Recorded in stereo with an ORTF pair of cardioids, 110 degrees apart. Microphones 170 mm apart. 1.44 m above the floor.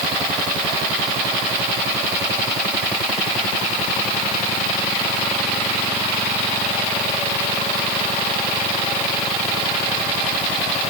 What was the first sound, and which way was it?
Only background noise.